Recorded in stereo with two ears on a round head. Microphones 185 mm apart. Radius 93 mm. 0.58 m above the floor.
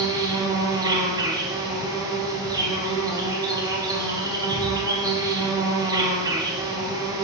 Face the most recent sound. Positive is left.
turn(degrees=-20)  # may be behind; listen again after turning